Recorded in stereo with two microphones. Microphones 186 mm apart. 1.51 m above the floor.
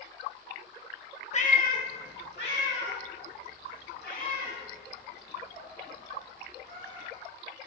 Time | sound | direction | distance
1.3 | a cat meowing | 35° left (ahead or behind) | 0.8 m